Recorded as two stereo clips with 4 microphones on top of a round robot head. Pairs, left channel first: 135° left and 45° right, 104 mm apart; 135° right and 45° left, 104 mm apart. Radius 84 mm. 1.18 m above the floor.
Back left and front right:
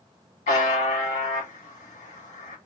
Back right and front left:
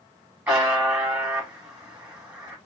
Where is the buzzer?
120° left, 2.0 m.